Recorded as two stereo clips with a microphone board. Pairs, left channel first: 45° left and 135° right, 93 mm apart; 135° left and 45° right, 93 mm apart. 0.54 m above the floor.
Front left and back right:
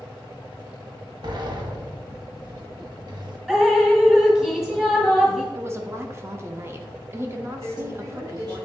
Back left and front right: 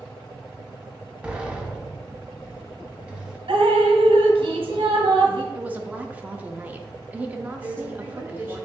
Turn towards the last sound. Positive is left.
turn(degrees=-105)